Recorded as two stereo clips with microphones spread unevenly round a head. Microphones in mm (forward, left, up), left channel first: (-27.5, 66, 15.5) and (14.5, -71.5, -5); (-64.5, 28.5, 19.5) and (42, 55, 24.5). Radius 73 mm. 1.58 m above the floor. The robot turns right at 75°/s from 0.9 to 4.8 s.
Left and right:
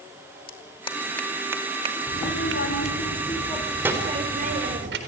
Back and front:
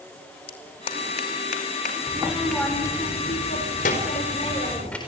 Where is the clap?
160° left, 2.5 m; by 3.0 s 45° right, 2.5 m.